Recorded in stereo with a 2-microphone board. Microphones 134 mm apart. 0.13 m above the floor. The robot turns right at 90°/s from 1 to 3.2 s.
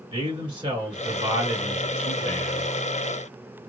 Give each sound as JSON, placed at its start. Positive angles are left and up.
{"t": 0.1, "sound": "a man speaking", "azimuth_deg": -100, "distance_m": 1.9}